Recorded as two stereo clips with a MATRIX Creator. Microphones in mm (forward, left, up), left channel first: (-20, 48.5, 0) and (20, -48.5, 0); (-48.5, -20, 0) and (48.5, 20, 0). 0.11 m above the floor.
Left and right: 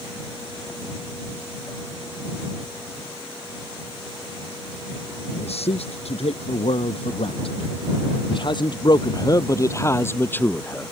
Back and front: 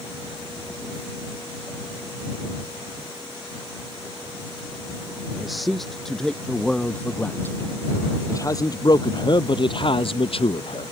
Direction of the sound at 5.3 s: 110° left.